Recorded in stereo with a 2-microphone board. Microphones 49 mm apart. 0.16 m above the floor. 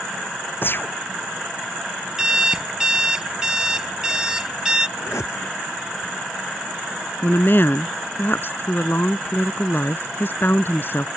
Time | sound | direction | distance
0.6 | a gunshot | 50° left (ahead or behind) | ?
2.2 | an alarm clock | 15° right (ahead or behind) | ?
5.0 | a whoosh | 85° left | ?
7.2 | a woman speaking | 50° left (ahead or behind) | ?